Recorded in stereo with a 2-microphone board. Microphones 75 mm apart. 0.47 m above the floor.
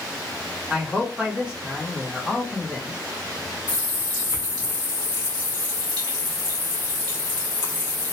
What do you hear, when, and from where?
0.7 s a man speaking: 15° right (ahead or behind), 1.1 m
3.7 s a running tap: 70° right (ahead or behind), 1.6 m